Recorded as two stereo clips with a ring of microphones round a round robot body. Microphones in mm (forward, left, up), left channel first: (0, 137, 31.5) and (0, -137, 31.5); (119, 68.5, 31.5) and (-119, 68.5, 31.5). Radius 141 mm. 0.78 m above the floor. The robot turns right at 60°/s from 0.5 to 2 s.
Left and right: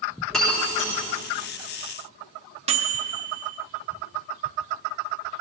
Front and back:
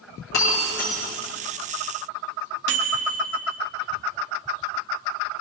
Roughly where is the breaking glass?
Ahead.